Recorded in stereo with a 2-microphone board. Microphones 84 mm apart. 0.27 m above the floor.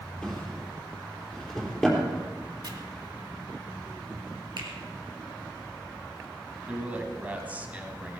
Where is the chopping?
55° right (ahead or behind), 2.0 m.